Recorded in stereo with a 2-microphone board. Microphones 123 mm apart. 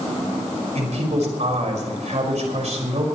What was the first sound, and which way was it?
A man speaking, 65° right (ahead or behind).